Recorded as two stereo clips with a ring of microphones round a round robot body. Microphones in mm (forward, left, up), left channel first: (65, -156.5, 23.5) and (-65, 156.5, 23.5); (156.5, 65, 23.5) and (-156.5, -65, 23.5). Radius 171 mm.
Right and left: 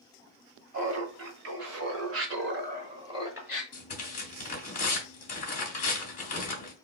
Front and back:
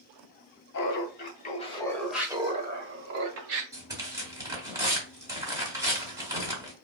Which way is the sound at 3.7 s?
90° right.